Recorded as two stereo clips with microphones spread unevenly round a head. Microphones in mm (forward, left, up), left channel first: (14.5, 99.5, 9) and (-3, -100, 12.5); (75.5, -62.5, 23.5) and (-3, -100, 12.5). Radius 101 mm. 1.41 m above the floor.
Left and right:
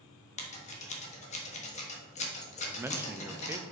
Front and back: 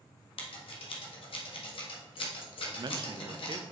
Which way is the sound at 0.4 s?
30° left.